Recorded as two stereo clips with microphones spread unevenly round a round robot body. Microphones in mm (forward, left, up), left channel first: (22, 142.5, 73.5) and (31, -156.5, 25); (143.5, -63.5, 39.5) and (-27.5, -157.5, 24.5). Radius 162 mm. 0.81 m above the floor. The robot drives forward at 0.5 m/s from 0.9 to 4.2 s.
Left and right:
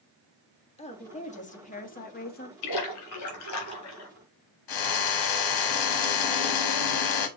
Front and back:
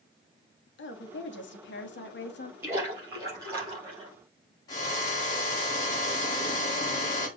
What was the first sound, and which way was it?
A woman speaking, 20° left.